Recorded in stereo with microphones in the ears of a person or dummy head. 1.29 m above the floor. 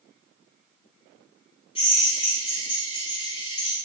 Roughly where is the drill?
Left.